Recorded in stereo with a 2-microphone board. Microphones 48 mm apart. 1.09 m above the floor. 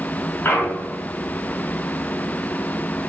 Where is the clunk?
45° left (ahead or behind), 0.6 m.